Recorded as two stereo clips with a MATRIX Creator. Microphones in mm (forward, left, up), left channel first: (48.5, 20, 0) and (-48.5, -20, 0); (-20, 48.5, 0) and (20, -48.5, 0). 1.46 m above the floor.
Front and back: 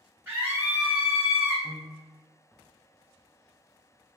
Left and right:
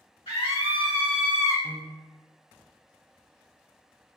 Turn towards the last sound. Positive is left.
turn(degrees=-125)